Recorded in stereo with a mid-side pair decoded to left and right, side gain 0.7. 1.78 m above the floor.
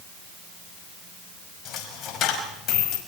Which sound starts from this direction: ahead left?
A dropped coin, at 1.6 s.